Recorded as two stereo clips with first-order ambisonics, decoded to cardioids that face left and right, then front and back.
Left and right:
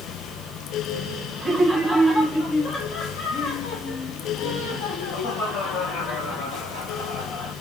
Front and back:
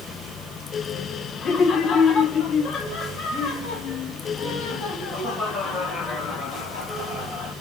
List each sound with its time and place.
1.4 s laughter: 25° right, 0.8 m; by 7.5 s 60° left, 3 m